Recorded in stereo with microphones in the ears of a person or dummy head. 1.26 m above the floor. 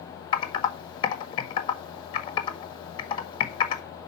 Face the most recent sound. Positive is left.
turn(degrees=30)  # may be behind; listen again after turning